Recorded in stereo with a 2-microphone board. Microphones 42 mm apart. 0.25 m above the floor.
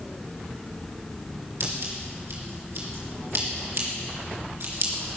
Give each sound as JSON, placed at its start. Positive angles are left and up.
{"t": 1.6, "sound": "scissors", "side_deg": -70, "distance_m": 4.0}